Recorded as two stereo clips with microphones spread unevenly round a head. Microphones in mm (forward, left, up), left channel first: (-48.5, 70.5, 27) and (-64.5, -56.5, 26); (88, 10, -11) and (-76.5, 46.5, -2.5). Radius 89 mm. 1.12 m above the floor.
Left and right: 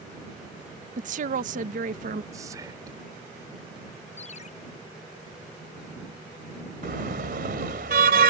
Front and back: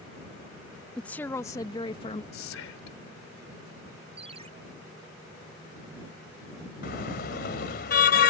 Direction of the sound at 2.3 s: 25° right.